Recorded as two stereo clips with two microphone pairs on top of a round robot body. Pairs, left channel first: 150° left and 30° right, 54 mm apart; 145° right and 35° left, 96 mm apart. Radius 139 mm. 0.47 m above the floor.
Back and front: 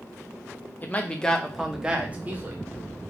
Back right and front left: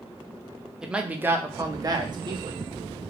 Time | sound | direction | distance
0.8 | a man speaking | 110° left | 1.1 m